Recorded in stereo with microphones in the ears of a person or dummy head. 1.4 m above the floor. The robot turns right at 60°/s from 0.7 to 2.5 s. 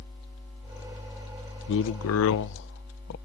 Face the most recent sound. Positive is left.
turn(degrees=115)